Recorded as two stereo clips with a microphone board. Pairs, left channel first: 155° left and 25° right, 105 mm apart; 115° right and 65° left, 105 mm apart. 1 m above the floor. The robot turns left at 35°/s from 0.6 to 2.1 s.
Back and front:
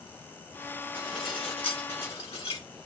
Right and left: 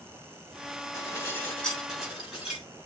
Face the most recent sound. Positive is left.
turn(degrees=155)